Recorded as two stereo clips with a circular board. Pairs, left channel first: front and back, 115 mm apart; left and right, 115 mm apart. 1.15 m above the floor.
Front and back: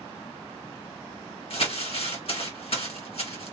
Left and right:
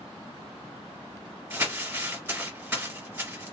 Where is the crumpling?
20° right, 2 m.